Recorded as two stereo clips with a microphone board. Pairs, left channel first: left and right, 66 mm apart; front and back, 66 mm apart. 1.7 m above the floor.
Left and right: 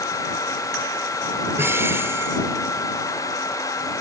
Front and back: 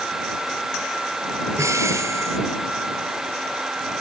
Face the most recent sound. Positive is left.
turn(degrees=-140)